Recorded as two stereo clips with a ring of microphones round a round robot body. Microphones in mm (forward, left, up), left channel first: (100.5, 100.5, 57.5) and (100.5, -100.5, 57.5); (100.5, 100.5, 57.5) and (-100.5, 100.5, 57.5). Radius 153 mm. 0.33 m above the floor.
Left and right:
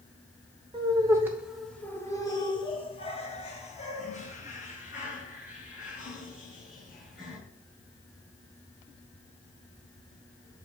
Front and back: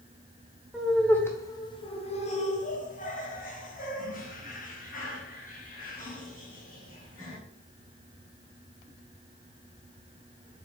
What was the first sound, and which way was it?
Laughter, 95° right.